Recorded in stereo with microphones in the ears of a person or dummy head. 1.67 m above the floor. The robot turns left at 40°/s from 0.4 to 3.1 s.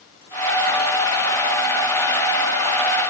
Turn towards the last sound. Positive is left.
No sound to turn to.